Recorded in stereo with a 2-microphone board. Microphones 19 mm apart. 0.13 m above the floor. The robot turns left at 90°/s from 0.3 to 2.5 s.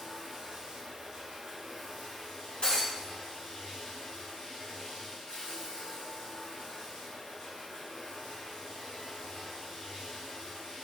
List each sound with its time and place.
0.0 s running water: 35° right, 1.2 m; by 10.8 s 125° left, 1.2 m
2.6 s breaking glass: 70° left (ahead or behind), 1.4 m